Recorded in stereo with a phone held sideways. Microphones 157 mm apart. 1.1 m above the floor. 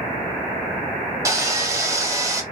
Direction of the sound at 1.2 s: 20° right (ahead or behind).